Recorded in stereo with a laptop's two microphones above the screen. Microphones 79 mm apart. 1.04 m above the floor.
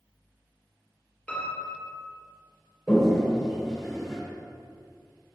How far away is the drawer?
No drawer in this recording.